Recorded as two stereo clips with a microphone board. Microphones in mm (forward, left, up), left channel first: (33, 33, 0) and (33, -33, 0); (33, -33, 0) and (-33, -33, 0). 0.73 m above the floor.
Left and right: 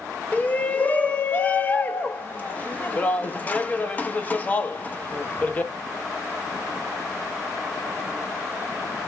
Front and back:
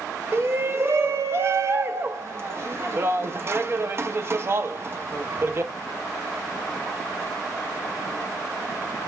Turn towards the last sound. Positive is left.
turn(degrees=145)